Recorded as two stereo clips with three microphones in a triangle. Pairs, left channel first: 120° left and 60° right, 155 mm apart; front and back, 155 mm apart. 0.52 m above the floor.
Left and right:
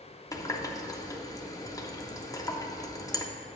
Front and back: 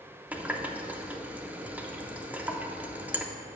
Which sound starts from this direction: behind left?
A running tap, at 0.3 s.